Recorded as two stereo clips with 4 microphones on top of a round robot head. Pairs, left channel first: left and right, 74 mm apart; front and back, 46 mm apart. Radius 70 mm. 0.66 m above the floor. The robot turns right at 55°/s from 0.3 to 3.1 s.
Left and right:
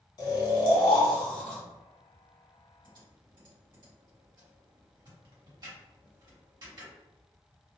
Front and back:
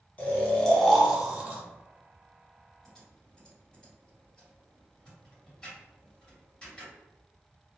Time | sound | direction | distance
0.2 | snoring | 60° left | 0.7 m
2.8 | typing on a keyboard | 90° right | 1.6 m